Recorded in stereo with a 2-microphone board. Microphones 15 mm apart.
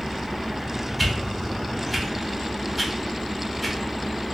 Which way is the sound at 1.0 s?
5° right (ahead or behind).